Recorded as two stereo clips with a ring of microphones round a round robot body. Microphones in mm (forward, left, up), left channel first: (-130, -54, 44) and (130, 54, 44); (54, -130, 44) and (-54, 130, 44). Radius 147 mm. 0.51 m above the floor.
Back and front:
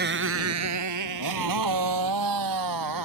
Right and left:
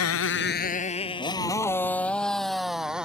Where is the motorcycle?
35° right; by 3.0 s 25° left.